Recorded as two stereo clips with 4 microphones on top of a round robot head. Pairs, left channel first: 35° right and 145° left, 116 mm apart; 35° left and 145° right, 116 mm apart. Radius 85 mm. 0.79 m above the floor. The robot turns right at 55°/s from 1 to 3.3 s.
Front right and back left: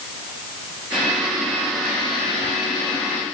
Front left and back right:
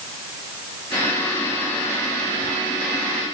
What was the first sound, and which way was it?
Only background noise.